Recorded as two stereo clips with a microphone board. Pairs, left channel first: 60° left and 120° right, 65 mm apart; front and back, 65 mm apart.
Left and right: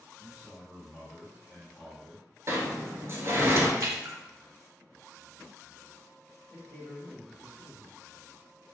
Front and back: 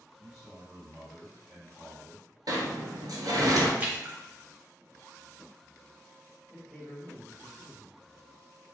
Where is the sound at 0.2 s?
120° left, 1.4 m.